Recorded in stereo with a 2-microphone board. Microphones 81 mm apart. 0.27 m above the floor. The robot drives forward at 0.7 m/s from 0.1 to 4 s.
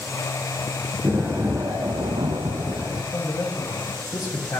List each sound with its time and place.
1.0 s an explosion: 30° right (ahead or behind), 0.9 m; by 3.0 s 40° right (ahead or behind), 0.8 m
3.1 s a man speaking: 35° left (ahead or behind), 1.4 m